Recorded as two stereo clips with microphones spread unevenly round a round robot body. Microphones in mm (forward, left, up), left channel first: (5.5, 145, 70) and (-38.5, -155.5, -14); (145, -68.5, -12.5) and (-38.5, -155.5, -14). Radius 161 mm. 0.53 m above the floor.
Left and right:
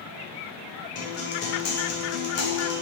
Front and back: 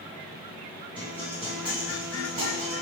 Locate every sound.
0.9 s a guitar: 130° left, 0.8 m